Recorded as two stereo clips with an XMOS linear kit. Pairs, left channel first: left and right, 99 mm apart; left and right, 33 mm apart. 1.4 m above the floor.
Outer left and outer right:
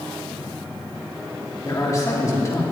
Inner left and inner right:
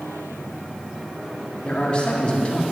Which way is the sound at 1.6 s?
35° left (ahead or behind).